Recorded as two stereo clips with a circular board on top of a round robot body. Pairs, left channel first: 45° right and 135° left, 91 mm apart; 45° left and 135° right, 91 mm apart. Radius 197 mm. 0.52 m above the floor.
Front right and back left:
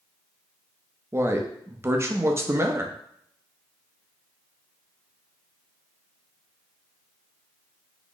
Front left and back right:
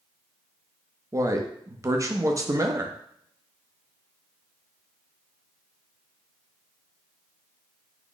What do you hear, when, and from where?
1.1 s a man speaking: 175° right, 0.8 m